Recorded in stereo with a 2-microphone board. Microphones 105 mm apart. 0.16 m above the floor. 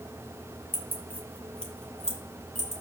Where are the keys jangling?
20° left (ahead or behind), 2 m; by 2.8 s centre (ahead or behind), 3.5 m.